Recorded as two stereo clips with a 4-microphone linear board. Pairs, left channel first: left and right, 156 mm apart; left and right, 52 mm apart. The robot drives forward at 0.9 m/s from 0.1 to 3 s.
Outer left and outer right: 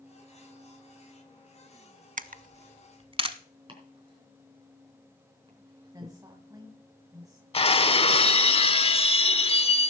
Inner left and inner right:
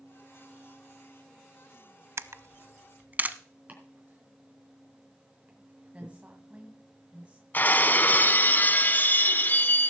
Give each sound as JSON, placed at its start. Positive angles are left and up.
{"t": 2.2, "sound": "a camera shutter", "side_deg": -60, "distance_m": 0.6}
{"t": 3.7, "sound": "chopping", "side_deg": -35, "distance_m": 3.5}
{"t": 5.9, "sound": "a woman speaking", "side_deg": -25, "distance_m": 1.8}
{"t": 7.5, "sound": "breaking glass", "side_deg": 40, "distance_m": 0.5}